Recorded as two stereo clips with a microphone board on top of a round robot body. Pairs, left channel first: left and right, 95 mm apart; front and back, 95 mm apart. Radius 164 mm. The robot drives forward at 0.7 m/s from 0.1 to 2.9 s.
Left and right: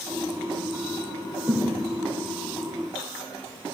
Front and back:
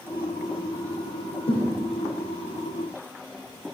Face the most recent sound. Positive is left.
turn(degrees=-40)